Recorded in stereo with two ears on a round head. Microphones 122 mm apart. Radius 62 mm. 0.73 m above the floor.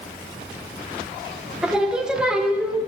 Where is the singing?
5° right (ahead or behind), 0.6 m.